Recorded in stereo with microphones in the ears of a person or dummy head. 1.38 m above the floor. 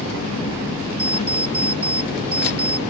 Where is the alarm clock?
35° right (ahead or behind).